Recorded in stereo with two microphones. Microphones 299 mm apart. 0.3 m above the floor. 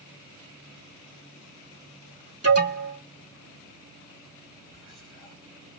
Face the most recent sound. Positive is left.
turn(degrees=15)  # may be behind; listen again after turning